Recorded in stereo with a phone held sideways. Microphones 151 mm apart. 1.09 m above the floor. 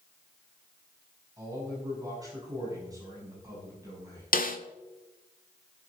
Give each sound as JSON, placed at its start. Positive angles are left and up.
{"t": 1.4, "sound": "a man speaking", "side_deg": -25, "distance_m": 7.0}
{"t": 4.3, "sound": "a snare drum", "side_deg": 70, "distance_m": 1.4}